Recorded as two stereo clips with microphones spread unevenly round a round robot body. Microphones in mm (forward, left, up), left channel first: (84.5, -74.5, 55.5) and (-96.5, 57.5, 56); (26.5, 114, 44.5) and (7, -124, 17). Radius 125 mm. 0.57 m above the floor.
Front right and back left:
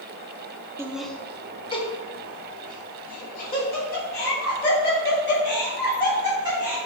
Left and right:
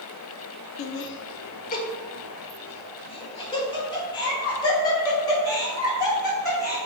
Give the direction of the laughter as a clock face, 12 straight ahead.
10 o'clock.